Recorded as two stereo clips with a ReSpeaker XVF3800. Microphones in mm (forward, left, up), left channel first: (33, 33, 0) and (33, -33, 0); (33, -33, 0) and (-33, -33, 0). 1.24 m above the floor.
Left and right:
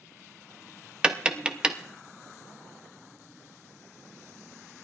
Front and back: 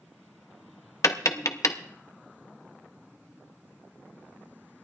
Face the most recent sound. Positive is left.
turn(degrees=-20)